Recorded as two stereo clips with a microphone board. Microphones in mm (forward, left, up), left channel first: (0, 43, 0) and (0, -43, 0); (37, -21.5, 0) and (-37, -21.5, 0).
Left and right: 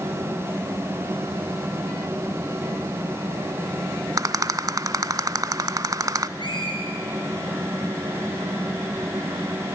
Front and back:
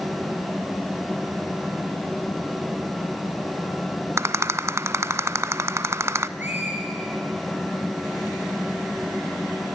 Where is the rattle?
130° right, 0.5 m.